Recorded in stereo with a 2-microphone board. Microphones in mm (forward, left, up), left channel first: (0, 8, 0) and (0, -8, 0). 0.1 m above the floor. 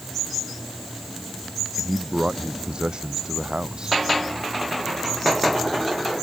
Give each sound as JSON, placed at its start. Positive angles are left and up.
{"t": 1.8, "sound": "a man speaking", "side_deg": -75}